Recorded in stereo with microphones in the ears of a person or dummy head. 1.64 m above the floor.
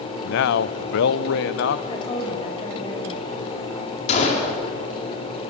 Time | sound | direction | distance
0.2 | a man speaking | 65° left (ahead or behind) | 0.7 m
1.9 | a woman speaking | 35° left (ahead or behind) | 7 m
4.1 | a gunshot | 45° left (ahead or behind) | 5 m